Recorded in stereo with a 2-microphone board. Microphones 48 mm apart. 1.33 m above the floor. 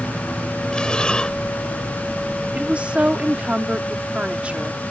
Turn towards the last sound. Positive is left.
turn(degrees=-25)  # may be behind; listen again after turning